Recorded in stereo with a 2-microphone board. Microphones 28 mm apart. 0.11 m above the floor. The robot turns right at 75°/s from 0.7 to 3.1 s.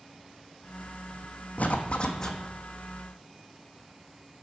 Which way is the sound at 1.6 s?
110° left.